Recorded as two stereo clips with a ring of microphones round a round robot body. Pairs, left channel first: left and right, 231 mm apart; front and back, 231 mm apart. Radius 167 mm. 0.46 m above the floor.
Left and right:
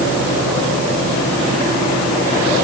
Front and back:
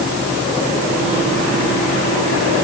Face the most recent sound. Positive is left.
No sound to turn to.